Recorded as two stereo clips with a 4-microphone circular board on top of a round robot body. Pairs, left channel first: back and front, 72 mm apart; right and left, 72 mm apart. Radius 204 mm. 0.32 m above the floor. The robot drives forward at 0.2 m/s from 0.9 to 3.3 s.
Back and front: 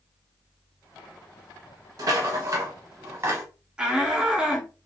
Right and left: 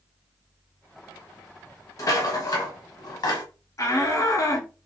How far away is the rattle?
About 0.9 m.